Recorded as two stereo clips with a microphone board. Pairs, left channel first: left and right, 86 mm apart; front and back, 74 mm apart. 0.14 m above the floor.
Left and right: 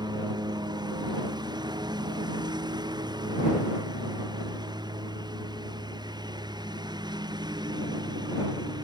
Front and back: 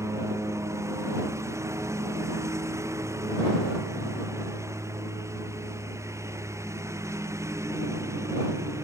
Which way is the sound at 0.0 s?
130° right.